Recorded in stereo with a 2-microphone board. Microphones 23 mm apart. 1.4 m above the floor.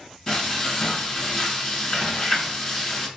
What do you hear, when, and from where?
0.3 s frying: 30° left (ahead or behind), 1.9 m